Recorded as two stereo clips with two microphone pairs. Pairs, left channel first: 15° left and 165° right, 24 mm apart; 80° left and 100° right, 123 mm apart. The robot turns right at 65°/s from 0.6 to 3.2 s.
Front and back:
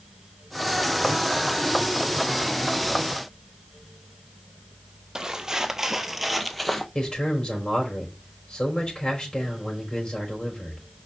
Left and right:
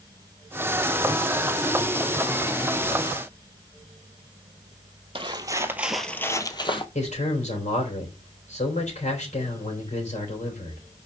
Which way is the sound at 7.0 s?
70° left.